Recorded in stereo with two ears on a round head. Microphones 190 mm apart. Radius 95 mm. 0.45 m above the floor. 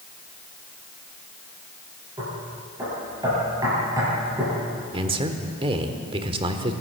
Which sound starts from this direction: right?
A man speaking, at 4.9 s.